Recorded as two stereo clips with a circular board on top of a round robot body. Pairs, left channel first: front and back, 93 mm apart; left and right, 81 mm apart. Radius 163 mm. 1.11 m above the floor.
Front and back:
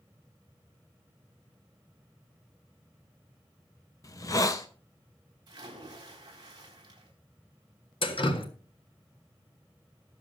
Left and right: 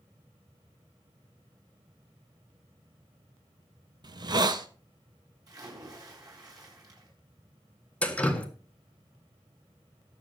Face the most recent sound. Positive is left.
turn(degrees=15)